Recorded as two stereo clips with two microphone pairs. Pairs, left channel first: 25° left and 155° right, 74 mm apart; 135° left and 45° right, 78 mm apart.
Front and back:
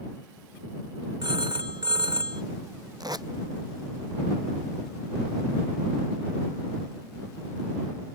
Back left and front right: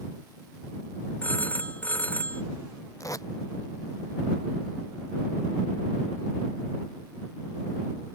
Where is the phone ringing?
155° right.